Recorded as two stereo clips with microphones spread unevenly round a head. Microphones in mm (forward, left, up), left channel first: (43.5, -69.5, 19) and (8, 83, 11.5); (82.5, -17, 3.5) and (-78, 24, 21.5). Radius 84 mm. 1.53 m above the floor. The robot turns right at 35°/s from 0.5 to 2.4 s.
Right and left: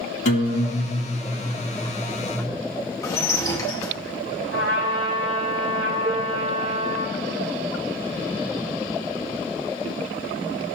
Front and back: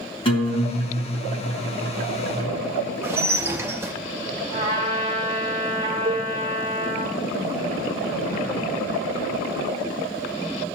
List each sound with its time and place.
0.2 s a guitar: 70° right, 1.9 m; by 2.5 s 5° right, 1.9 m
3.0 s dishes clattering: 135° right, 0.7 m
4.5 s a trumpet: 100° left, 4 m
6.0 s dishes clattering: 130° left, 0.7 m